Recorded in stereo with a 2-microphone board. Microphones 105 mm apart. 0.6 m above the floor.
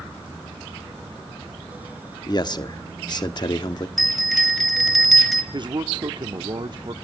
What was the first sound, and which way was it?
A man speaking, 40° left (ahead or behind).